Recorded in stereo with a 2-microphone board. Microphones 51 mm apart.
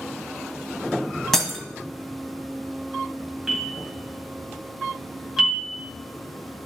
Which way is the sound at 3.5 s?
10° right (ahead or behind).